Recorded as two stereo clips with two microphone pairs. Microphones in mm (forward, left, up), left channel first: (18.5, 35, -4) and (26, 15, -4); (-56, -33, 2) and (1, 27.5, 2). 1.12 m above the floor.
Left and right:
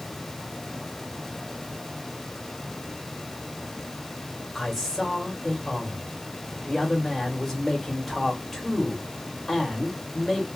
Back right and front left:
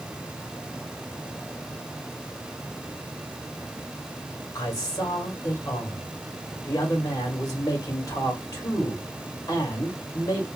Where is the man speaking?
175° right, 1.9 m.